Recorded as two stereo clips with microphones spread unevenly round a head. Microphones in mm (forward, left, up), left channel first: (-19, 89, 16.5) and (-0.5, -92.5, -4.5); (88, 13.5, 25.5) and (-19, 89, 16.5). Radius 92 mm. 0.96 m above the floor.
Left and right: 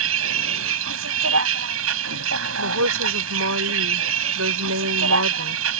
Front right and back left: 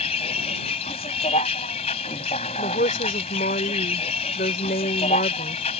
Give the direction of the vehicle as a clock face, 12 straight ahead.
3 o'clock.